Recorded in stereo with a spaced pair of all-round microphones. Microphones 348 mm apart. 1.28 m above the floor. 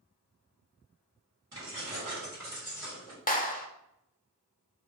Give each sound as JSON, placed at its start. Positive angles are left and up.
{"t": 1.5, "sound": "keys jangling", "side_deg": -65, "distance_m": 2.0}
{"t": 3.3, "sound": "a clap", "side_deg": 25, "distance_m": 0.6}